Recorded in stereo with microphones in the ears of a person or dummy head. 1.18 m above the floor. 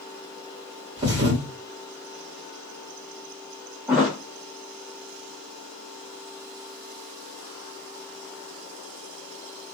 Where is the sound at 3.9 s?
10° right (ahead or behind), 0.9 m.